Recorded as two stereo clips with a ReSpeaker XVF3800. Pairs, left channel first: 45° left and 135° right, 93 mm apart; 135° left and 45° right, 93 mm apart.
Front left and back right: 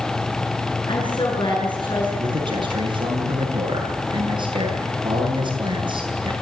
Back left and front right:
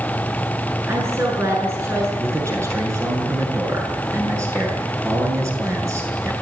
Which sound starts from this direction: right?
A man speaking, at 2.2 s.